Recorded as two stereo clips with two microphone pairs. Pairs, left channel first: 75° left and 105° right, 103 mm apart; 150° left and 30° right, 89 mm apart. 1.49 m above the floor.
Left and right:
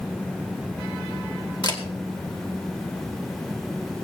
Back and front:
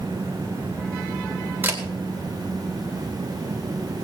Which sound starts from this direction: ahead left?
A camera shutter, at 1.6 s.